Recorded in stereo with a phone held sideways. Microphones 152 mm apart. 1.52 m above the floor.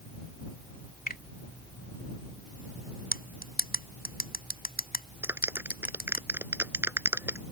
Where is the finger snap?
80° left.